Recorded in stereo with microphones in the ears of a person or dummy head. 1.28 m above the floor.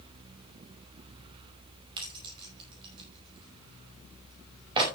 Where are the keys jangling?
30° right (ahead or behind), 5 m.